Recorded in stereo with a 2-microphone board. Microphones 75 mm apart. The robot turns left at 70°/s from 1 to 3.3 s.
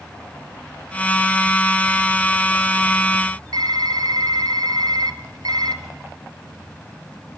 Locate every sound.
3.5 s typing on a keyboard: 65° right (ahead or behind), 1.0 m